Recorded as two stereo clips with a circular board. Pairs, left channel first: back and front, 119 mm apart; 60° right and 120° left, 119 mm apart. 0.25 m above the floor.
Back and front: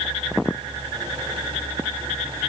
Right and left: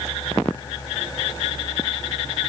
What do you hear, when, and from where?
Only background noise.